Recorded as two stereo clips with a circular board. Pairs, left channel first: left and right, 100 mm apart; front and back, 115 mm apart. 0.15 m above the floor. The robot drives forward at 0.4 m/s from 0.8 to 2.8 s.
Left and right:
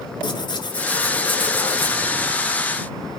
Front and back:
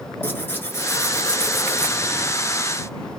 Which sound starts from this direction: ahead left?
Tearing paper, at 0.2 s.